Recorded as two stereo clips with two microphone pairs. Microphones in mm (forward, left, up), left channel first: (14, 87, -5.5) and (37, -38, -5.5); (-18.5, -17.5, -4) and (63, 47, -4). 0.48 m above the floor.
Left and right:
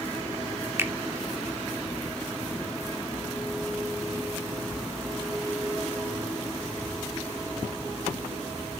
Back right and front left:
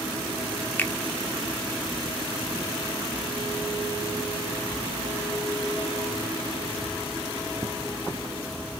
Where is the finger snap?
105° right, 0.7 m.